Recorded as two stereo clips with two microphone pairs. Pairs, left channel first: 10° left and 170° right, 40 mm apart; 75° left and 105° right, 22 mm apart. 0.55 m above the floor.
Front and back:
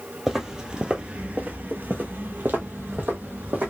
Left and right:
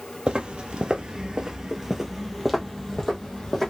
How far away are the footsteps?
About 0.9 m.